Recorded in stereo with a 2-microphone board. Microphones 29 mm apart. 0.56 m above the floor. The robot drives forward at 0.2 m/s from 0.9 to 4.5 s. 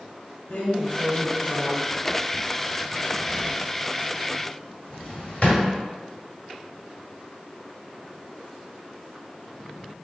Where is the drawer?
70° left (ahead or behind), 1.1 m; by 5.6 s 45° left (ahead or behind), 1.4 m.